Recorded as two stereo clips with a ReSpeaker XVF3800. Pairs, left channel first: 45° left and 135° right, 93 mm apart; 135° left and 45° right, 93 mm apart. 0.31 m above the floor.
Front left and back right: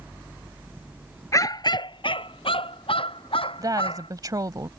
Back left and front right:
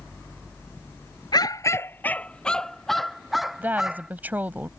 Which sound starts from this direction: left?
A dog barking, at 1.3 s.